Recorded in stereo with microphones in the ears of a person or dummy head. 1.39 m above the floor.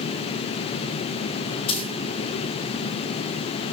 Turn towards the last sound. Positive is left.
turn(degrees=30)  # may be behind; listen again after turning